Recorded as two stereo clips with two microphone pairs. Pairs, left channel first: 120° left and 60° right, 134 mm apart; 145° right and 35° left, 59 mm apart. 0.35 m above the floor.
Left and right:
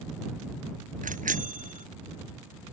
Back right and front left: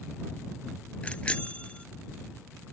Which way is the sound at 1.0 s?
75° right.